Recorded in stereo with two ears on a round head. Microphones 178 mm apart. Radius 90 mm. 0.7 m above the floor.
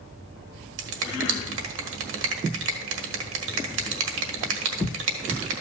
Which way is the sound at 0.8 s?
70° right (ahead or behind).